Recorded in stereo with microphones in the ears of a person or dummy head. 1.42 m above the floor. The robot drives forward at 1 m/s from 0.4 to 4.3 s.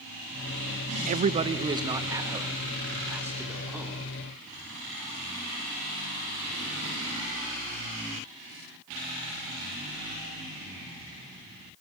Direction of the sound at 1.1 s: 45° right (ahead or behind).